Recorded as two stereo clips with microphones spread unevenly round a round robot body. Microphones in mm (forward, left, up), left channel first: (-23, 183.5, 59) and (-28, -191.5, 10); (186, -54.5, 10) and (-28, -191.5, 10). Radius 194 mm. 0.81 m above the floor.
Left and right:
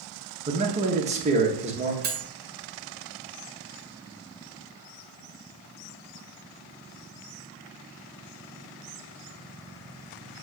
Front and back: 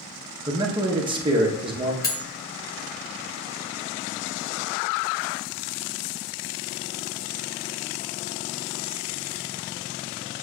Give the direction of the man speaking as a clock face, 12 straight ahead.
3 o'clock.